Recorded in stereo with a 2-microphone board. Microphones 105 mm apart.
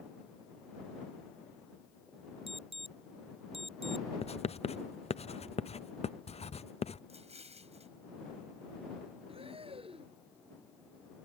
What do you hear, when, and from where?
2.5 s an alarm: 65° right (ahead or behind)
4.2 s writing: 80° left
7.1 s an explosion: 85° right
9.3 s breathing: 65° right (ahead or behind)